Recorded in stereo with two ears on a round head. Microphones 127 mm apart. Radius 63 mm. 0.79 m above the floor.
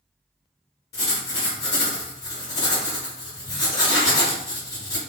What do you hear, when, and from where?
0.9 s writing: 25° left (ahead or behind), 1.3 m